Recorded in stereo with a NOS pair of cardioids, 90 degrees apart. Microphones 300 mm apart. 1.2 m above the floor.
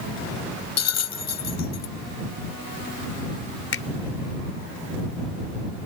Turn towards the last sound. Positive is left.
turn(degrees=45)